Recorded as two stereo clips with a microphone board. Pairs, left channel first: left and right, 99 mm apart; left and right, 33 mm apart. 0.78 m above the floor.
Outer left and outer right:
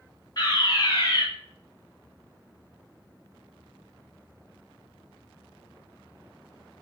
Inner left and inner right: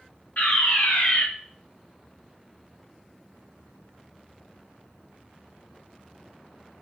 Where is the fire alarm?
45° left (ahead or behind), 3.5 m.